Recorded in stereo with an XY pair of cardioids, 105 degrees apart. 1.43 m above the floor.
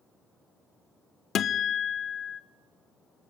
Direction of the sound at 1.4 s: 60° left.